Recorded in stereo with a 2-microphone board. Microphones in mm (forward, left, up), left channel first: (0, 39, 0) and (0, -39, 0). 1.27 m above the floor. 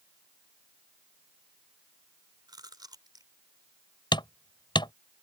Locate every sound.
2.5 s chewing: 60° right (ahead or behind)
4.1 s hammering: 80° left